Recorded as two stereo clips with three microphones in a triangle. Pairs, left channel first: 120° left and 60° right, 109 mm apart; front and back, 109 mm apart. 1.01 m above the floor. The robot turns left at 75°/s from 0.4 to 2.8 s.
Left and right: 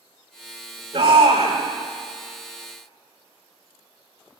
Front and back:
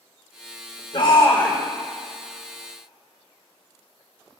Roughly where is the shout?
Ahead right.